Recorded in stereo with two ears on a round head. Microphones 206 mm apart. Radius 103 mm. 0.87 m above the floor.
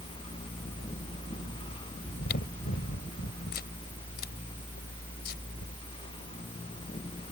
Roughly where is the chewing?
Left.